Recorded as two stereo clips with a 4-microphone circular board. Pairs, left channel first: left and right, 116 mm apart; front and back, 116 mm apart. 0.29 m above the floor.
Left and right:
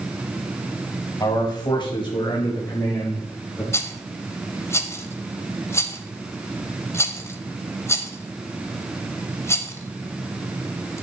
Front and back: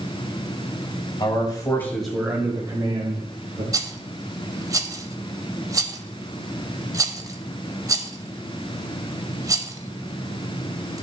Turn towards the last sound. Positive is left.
turn(degrees=140)